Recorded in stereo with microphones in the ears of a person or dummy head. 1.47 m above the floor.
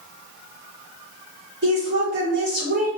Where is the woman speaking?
50° right (ahead or behind), 1.6 m.